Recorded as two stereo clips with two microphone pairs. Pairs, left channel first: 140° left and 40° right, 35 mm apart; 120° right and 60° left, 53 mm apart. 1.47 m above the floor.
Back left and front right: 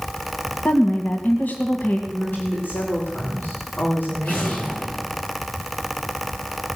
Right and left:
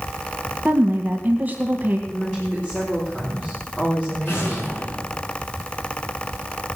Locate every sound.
0.7 s a woman speaking: 120° left, 1.8 m
2.1 s a woman speaking: 170° left, 3.5 m
4.2 s an explosion: 165° right, 5.5 m